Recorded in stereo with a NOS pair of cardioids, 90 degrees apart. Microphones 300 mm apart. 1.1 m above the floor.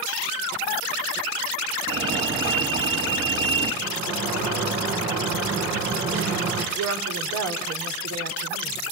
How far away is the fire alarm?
About 5 m.